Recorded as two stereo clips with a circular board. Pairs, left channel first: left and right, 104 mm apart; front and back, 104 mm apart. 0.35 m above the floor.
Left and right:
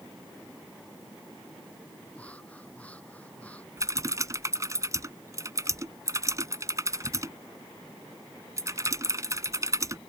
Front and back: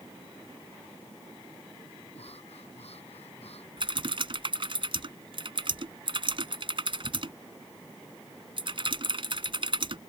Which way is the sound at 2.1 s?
15° left.